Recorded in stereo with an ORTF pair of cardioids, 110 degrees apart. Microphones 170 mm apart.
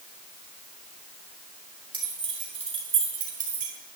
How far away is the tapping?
I don't hear tapping.